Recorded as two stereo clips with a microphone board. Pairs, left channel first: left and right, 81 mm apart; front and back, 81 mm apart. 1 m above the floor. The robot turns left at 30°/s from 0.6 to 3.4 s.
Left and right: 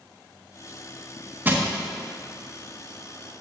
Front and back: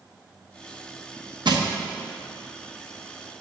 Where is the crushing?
155° right, 0.8 m; by 1.7 s 160° right, 0.8 m.